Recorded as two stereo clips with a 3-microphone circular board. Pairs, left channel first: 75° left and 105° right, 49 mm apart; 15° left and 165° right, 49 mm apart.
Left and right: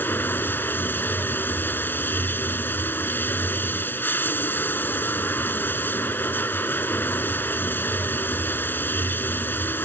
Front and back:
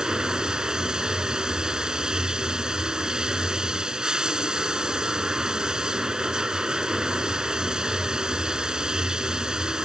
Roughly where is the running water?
Behind left.